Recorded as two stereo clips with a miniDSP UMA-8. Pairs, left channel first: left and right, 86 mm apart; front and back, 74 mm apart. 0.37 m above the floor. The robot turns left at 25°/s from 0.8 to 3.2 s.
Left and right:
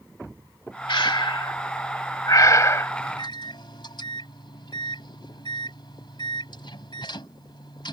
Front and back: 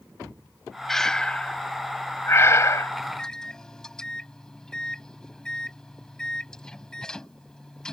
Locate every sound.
0.9 s breathing: 85° left; by 2.9 s 35° left
3.0 s a microwave: 85° left; by 7.9 s 80° left